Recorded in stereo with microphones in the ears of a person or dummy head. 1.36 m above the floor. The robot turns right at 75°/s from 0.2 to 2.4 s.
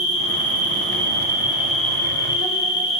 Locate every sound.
0.0 s an insect: 110° right, 1.6 m; by 3.0 s 55° left, 1.6 m